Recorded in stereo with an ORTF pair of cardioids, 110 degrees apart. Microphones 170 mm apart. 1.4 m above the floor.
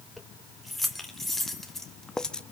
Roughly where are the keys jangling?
Ahead.